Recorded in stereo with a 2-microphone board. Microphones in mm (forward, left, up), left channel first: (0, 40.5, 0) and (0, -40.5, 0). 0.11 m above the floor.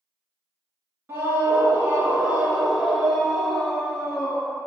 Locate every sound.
1.1 s a scream: 30° right (ahead or behind), 1.2 m; by 4.7 s 15° left (ahead or behind), 1.7 m